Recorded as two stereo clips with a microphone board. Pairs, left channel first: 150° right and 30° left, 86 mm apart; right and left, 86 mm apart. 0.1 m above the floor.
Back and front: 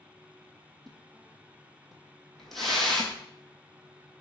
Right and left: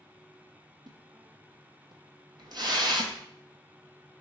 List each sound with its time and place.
0.9 s a splash: 125° left, 0.7 m